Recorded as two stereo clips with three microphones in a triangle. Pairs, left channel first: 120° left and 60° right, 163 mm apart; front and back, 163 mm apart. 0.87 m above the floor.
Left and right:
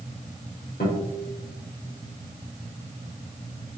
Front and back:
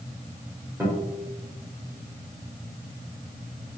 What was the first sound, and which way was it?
A guitar, 100° left.